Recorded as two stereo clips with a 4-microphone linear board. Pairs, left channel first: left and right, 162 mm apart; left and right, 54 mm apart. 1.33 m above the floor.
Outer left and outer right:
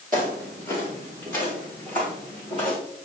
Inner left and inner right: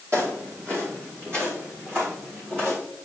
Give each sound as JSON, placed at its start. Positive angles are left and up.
{"t": 0.1, "sound": "footsteps", "side_deg": -60, "distance_m": 2.5}